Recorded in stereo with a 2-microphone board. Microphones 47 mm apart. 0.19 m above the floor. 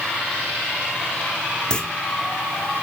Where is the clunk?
20° left (ahead or behind), 1.7 m.